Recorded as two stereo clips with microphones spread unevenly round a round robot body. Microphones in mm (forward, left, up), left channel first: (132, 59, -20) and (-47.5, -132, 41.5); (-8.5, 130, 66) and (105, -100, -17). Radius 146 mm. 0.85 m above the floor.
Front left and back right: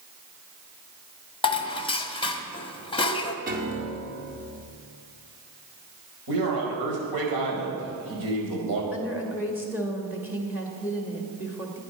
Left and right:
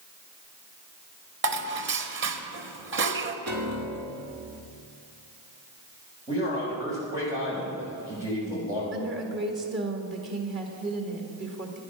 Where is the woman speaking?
45° right, 1.8 m.